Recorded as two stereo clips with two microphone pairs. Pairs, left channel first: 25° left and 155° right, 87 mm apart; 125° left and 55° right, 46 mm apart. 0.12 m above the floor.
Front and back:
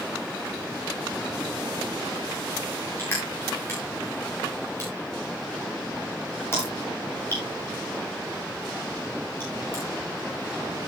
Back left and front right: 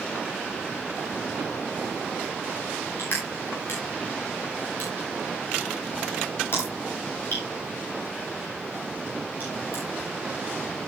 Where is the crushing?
90° left, 9 m.